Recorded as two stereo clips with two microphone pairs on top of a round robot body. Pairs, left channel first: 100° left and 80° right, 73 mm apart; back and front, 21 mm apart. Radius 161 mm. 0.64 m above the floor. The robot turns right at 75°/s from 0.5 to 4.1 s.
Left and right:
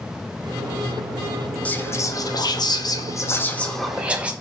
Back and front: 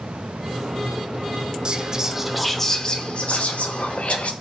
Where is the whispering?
25° left, 0.8 m; by 4.3 s 150° right, 0.8 m.